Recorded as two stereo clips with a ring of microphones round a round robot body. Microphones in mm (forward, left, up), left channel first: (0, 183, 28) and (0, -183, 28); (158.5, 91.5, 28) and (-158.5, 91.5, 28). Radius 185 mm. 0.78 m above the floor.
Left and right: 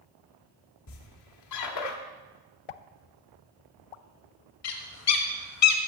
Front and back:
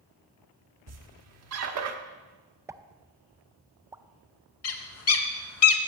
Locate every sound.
0.9 s a squeak: 135° left, 1.1 m
2.7 s a pop: 100° left, 0.5 m
4.6 s a bird: 45° left, 1.0 m